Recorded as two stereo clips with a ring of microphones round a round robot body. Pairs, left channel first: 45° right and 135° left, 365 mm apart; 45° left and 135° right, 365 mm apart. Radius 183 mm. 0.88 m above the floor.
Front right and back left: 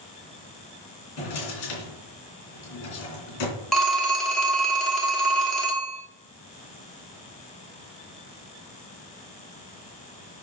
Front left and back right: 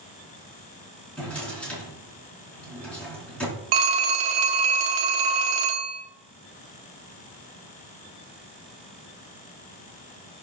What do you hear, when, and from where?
1.2 s a drawer: 40° right, 3 m
3.7 s a phone ringing: 135° right, 1.4 m